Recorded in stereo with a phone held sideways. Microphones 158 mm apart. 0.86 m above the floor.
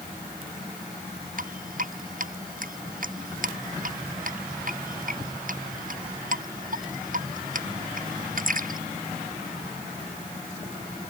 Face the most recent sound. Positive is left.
turn(degrees=-60)  # may be behind; listen again after turning